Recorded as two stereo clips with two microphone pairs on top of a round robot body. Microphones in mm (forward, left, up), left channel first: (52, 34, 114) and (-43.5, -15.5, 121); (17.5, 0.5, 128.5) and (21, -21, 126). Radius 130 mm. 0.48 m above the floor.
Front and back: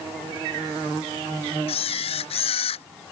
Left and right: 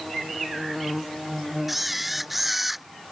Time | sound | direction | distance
1.7 | a camera shutter | 5° left | ?